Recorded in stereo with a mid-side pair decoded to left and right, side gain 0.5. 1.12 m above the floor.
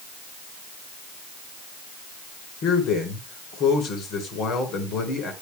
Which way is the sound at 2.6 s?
65° left.